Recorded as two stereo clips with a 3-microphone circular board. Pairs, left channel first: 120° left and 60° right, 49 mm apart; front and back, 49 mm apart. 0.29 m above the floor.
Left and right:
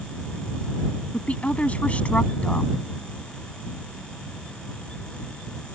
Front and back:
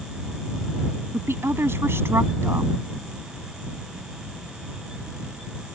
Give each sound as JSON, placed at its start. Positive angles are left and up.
{"t": 1.1, "sound": "a woman speaking", "azimuth_deg": 175}